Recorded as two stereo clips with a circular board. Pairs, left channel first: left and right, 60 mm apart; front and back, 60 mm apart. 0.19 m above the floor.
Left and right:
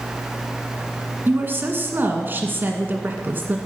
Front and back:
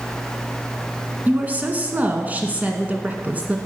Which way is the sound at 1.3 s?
130° right.